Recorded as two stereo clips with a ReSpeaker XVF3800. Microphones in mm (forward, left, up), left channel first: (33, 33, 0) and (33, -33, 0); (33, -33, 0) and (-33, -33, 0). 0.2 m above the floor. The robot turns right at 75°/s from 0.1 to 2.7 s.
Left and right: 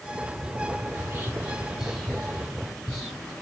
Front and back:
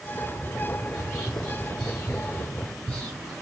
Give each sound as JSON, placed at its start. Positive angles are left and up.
{"t": 0.9, "sound": "whispering", "azimuth_deg": -110, "distance_m": 1.0}